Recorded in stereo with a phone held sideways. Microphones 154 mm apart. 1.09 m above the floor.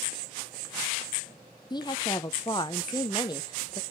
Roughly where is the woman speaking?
Left.